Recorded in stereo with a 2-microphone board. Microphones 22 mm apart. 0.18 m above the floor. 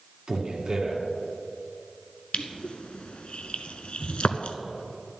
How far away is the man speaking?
About 2 m.